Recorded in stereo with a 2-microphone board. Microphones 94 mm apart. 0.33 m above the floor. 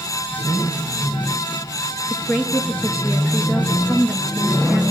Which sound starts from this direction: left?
A woman speaking, at 2.1 s.